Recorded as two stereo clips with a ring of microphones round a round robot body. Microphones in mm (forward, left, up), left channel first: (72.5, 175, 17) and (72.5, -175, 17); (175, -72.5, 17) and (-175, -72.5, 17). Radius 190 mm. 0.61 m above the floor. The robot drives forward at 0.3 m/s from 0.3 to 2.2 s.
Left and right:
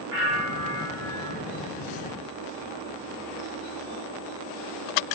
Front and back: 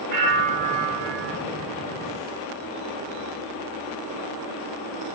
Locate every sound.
0.1 s a bell: 135° right, 0.9 m; by 1.4 s 150° right, 1.1 m